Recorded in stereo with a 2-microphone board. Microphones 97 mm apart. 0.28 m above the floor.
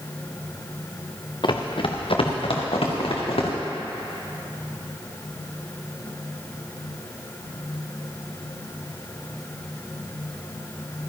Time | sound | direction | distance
1.4 | running footsteps | 50° left (ahead or behind) | 1.3 m